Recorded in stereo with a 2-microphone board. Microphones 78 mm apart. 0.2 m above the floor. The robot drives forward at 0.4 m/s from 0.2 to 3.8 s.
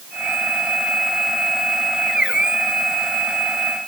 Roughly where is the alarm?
I don't hear an alarm.